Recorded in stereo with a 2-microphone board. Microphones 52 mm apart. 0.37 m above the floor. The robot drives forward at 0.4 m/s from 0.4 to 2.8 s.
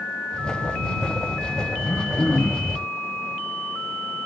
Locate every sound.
1.8 s throat clearing: 70° left (ahead or behind), 7 m; by 2.8 s 65° left (ahead or behind), 7.5 m